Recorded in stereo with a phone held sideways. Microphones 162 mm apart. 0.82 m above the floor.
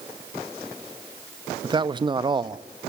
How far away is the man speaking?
About 0.8 m.